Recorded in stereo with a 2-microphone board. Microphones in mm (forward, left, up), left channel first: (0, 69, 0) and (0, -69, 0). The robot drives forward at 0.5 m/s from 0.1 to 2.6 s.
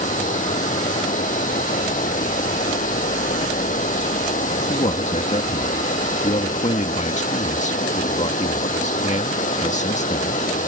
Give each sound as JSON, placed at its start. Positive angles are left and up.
{"t": 0.0, "sound": "running water", "side_deg": 70}
{"t": 4.7, "sound": "a man speaking", "side_deg": 60}